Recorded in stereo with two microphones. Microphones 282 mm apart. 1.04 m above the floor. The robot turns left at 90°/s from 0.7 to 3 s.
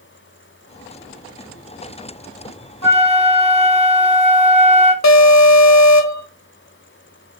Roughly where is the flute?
Right.